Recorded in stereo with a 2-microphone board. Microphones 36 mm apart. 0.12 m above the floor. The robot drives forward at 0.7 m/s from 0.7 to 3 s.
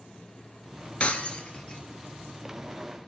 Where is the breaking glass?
35° left (ahead or behind), 1.0 m; by 1.8 s 25° left (ahead or behind), 1.4 m.